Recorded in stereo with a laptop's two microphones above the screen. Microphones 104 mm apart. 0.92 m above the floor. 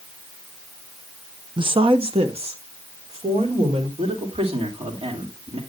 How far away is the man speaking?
About 3 m.